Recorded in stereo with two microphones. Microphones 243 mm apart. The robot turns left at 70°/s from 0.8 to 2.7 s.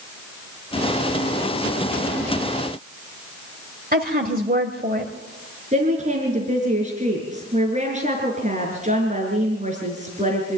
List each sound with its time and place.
3.9 s a woman speaking: 35° right (ahead or behind), 1.6 m
5.7 s a woman speaking: 30° right (ahead or behind), 4.5 m